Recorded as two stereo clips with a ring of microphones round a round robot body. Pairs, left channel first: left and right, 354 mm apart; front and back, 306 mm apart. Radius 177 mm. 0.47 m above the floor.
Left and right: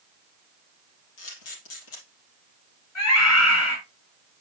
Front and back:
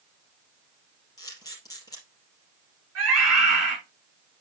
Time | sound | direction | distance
1.2 | a camera shutter | 80° left | 4.5 m
3.0 | a scream | 135° left | 5 m